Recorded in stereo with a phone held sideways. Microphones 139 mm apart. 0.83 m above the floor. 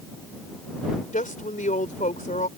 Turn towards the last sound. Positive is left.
turn(degrees=70)  # may be behind; listen again after turning